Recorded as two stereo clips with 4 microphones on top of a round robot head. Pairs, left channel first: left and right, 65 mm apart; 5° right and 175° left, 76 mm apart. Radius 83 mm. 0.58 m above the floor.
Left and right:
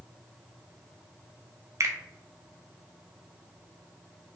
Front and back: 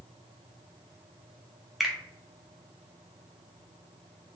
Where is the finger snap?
95° right, 0.6 m.